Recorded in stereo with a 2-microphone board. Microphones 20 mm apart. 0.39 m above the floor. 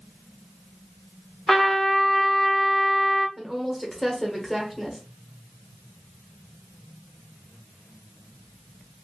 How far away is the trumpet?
About 1.0 m.